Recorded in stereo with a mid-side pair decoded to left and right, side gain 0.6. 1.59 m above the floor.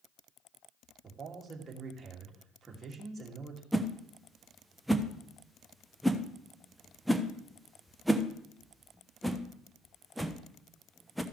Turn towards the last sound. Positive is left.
turn(degrees=-5)